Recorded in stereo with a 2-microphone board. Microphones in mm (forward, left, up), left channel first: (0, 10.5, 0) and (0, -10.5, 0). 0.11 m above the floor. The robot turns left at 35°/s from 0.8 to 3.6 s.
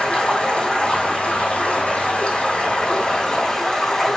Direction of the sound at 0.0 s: 130° left.